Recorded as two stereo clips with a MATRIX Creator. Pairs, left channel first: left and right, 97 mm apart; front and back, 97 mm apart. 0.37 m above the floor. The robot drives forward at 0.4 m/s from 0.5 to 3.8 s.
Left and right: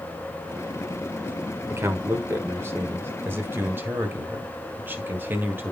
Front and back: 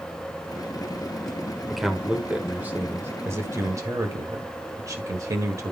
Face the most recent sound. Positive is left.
turn(degrees=-145)